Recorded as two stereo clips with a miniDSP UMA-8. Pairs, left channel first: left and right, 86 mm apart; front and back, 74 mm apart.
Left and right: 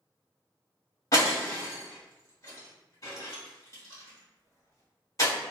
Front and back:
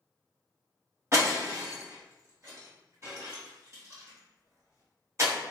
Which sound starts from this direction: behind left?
Breaking glass, at 1.1 s.